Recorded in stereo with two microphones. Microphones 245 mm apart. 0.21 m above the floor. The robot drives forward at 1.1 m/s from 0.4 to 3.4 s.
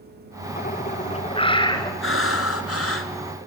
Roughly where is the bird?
Left.